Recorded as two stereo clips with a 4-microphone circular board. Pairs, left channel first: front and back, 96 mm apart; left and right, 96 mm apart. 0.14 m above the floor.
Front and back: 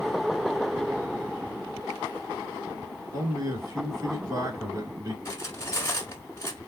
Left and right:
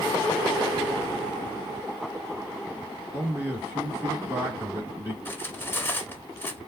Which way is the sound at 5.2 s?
35° left.